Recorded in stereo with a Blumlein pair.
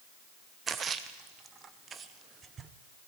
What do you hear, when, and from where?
0.7 s a splash: 20° right, 0.7 m